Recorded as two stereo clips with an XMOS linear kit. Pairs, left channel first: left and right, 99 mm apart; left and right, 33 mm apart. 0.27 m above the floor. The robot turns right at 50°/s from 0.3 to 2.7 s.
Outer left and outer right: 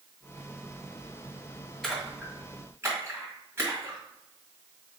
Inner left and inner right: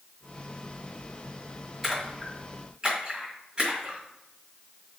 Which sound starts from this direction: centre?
A splash, at 1.8 s.